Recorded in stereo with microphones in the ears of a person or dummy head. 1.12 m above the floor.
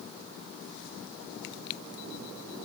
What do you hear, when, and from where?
Only background noise.